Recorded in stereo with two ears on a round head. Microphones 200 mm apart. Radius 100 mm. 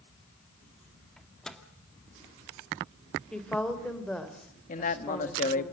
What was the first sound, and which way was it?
A microwave, 5° left (ahead or behind).